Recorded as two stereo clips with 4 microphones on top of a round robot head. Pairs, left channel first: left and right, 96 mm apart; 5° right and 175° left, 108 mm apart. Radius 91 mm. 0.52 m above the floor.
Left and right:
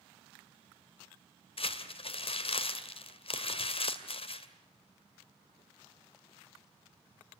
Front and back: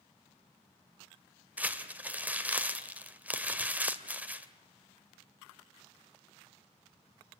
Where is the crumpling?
100° left, 2.5 m.